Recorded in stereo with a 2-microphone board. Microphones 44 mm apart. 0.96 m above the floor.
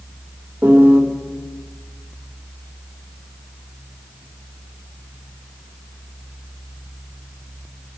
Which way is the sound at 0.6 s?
50° right (ahead or behind).